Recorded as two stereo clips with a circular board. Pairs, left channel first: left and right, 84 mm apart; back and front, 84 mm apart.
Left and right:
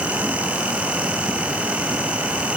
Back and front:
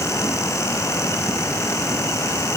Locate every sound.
Only background noise.